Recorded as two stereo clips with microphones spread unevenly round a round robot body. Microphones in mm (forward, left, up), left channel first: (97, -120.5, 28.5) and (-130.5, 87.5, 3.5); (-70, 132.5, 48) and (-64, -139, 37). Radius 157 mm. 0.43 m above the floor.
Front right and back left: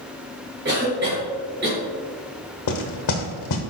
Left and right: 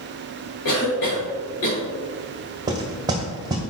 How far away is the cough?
About 1.8 m.